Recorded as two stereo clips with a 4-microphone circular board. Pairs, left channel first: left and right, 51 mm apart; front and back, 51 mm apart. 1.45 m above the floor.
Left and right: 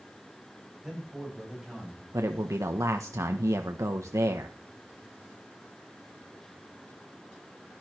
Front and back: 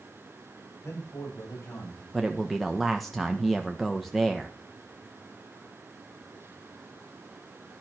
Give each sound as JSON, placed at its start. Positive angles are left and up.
{"t": 0.8, "sound": "a man speaking", "azimuth_deg": -5, "distance_m": 8.0}
{"t": 2.1, "sound": "a man speaking", "azimuth_deg": -85, "distance_m": 1.3}